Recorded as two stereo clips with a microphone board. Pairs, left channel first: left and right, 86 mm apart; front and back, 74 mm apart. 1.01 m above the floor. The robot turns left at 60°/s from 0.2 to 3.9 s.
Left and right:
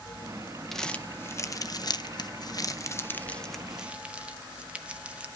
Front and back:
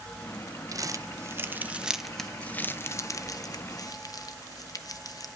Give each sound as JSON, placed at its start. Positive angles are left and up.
{"t": 0.7, "sound": "crumpling", "azimuth_deg": 175, "distance_m": 0.6}